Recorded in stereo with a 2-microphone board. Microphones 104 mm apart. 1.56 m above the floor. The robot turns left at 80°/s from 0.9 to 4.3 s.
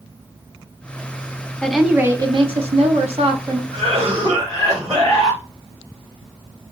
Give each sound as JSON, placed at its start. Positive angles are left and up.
{"t": 1.6, "sound": "a woman speaking", "azimuth_deg": 10, "distance_m": 0.9}
{"t": 3.7, "sound": "a cough", "azimuth_deg": -95, "distance_m": 2.5}